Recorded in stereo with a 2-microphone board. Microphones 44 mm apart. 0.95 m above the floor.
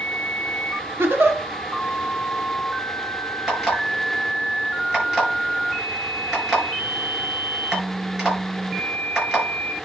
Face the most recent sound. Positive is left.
turn(degrees=-20)  # may be behind; listen again after turning